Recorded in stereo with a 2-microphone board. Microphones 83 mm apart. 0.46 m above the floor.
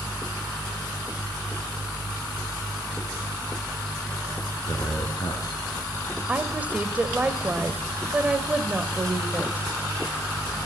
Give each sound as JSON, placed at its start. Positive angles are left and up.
{"t": 4.7, "sound": "a man speaking", "side_deg": 55, "distance_m": 5.0}
{"t": 6.3, "sound": "a woman speaking", "side_deg": -20, "distance_m": 2.0}